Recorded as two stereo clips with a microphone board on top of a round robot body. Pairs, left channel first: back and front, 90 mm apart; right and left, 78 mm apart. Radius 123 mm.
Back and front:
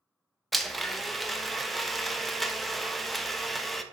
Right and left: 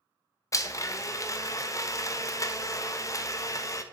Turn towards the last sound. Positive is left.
turn(degrees=-90)